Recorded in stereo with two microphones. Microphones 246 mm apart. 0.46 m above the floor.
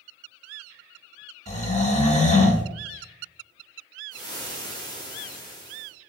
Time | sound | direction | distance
1.5 | snoring | 30° left (ahead or behind) | 0.8 m
4.1 | frying | 15° left (ahead or behind) | 1.1 m